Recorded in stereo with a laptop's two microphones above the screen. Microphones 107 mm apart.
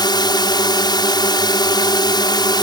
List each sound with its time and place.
0.0 s a drone: 40° left (ahead or behind)